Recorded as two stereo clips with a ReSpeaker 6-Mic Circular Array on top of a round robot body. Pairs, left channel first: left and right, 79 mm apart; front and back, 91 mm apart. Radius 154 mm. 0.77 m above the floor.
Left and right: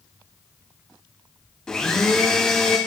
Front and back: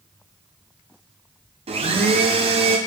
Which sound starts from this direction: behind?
A blender, at 1.7 s.